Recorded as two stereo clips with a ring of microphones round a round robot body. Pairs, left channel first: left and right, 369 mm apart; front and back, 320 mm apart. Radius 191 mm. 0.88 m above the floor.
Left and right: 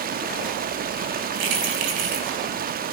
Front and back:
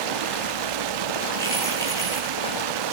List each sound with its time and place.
0.0 s running water: 160° right, 0.8 m
1.4 s keys jangling: 80° right, 6.5 m